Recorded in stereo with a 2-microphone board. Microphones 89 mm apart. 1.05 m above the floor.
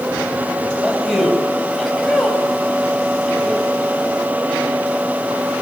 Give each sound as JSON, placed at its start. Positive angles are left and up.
{"t": 0.8, "sound": "a man speaking", "side_deg": 5, "distance_m": 7.0}